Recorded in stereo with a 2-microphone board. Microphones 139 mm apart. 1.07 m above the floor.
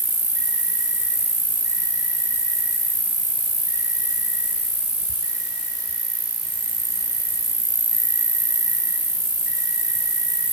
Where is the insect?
55° left (ahead or behind), 4.5 m.